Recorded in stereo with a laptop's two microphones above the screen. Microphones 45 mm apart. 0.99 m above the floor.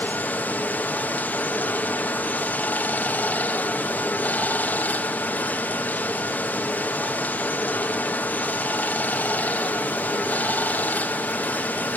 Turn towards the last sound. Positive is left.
turn(degrees=40)  # may be behind; listen again after turning